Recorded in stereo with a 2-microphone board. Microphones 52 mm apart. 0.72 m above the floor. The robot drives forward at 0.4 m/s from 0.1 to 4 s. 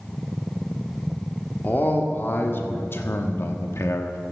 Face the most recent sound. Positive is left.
turn(degrees=55)  # may be behind; listen again after turning